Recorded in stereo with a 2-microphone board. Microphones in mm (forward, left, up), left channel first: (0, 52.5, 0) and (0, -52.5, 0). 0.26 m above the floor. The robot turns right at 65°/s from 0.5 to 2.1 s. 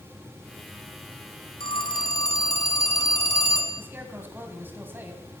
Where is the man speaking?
20° right (ahead or behind), 1.8 m.